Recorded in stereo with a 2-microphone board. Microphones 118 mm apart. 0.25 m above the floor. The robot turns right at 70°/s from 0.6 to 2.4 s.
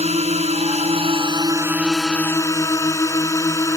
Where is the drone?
95° right; by 3.8 s 30° left.